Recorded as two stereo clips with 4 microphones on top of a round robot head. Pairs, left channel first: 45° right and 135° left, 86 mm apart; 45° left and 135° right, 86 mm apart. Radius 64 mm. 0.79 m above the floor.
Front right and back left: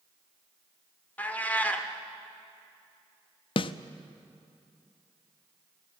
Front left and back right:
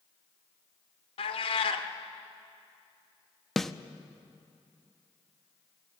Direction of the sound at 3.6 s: 40° right.